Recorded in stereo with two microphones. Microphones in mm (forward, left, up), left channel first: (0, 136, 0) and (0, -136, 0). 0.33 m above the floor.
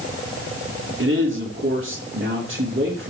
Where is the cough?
No cough in this recording.